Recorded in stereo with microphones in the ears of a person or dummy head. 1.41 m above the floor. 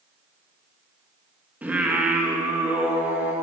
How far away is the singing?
About 1.5 m.